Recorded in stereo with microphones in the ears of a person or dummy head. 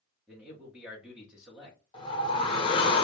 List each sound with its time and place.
0.3 s a man speaking: centre (ahead or behind), 1.0 m
1.9 s a whoosh: 30° left (ahead or behind), 0.9 m